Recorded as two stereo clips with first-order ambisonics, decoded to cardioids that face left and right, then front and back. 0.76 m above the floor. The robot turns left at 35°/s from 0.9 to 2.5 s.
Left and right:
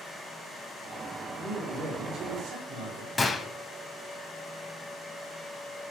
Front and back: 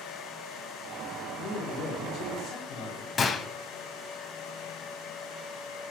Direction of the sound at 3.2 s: 35° left.